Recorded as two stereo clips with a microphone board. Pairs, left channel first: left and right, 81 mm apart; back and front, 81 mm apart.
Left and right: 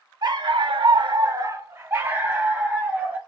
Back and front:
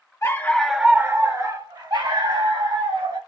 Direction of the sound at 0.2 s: 125° right.